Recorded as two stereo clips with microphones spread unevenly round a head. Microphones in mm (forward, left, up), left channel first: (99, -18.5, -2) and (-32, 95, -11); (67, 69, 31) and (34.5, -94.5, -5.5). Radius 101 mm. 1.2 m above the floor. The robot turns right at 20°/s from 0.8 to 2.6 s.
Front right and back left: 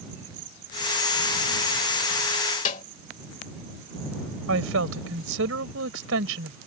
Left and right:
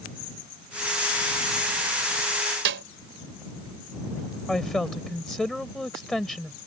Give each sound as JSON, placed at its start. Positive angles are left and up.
{"t": 2.6, "sound": "a snare drum", "azimuth_deg": -90}
{"t": 4.5, "sound": "a woman speaking", "azimuth_deg": 165}